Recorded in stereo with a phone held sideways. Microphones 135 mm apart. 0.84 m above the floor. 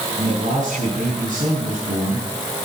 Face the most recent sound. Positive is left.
turn(degrees=-70)  # may be behind; listen again after turning